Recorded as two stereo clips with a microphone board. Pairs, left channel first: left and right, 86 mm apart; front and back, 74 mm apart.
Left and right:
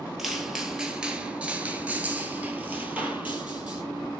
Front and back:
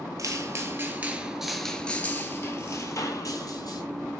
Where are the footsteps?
175° right, 1.0 m; by 3.8 s 20° right, 1.4 m.